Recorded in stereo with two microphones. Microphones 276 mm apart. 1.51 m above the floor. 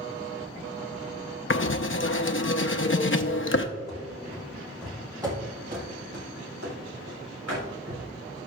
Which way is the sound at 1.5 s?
50° left (ahead or behind).